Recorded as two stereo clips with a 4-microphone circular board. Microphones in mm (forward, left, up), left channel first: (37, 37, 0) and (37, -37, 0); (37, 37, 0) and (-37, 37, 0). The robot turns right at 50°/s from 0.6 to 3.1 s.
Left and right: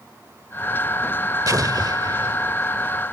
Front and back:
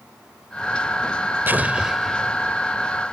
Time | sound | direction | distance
1.5 | an explosion | 120° right | ?